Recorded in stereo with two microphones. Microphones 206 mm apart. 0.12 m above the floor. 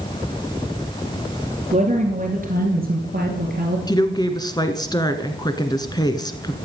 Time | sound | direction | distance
1.7 | a woman speaking | 35° right (ahead or behind) | 2 m
3.9 | a woman speaking | 20° left (ahead or behind) | 1.2 m